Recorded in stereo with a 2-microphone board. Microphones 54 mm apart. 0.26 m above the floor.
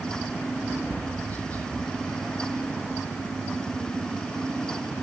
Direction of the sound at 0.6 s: 30° left (ahead or behind).